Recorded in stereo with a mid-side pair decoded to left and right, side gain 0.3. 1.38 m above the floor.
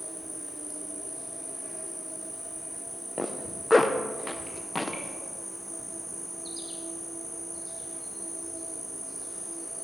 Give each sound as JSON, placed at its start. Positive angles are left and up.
{"t": 0.0, "sound": "an insect", "azimuth_deg": 0, "distance_m": 4.5}
{"t": 3.2, "sound": "a zipper", "azimuth_deg": 25, "distance_m": 1.1}